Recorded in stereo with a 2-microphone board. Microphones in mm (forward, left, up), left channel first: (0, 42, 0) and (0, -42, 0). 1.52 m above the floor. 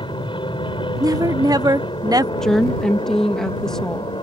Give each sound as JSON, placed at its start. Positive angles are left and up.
{"t": 0.0, "sound": "an aircraft", "side_deg": 70}
{"t": 1.0, "sound": "a woman speaking", "side_deg": -45}
{"t": 2.4, "sound": "a woman speaking", "side_deg": 5}